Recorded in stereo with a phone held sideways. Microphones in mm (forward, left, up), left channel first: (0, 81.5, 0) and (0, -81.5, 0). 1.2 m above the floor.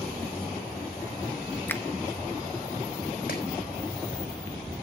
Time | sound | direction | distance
1.7 | a finger snap | 15° left (ahead or behind) | 0.8 m
3.3 | chopping | 75° left (ahead or behind) | 4 m